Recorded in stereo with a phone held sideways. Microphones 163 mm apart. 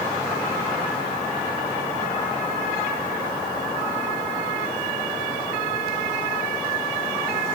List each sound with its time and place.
Only background noise.